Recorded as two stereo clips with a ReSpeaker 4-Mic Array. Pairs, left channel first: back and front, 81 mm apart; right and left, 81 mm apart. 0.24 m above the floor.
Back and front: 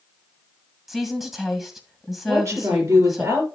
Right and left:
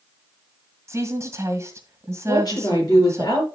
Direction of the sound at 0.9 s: 85° left.